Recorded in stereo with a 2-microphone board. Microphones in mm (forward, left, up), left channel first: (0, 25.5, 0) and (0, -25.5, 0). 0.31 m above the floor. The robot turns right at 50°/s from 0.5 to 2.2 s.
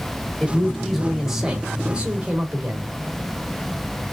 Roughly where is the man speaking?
Centre.